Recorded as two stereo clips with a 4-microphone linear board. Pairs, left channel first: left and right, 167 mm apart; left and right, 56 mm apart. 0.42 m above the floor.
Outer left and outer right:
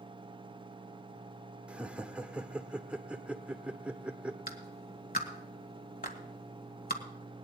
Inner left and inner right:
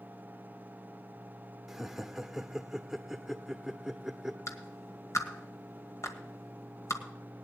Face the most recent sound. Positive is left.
turn(degrees=65)  # may be behind; listen again after turning